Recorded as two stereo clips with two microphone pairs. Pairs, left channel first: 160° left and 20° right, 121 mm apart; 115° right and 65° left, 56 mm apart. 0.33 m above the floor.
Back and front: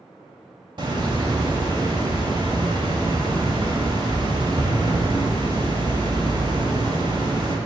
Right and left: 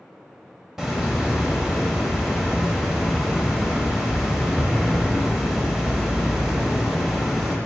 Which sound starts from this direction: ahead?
A hiss, at 0.8 s.